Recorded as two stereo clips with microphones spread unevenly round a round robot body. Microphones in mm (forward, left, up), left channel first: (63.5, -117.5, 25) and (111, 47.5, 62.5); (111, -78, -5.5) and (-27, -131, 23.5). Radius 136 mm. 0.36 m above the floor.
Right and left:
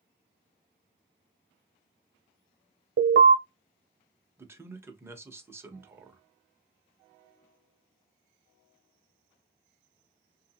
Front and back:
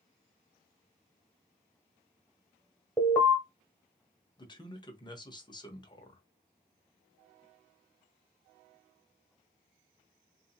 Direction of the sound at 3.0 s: 95° left.